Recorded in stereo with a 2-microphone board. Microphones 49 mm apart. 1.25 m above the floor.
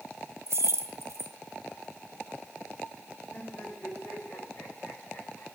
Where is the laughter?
45° left (ahead or behind), 6 m.